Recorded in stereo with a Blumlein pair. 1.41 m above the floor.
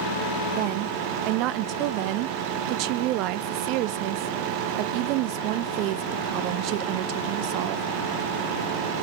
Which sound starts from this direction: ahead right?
A woman speaking, at 0.5 s.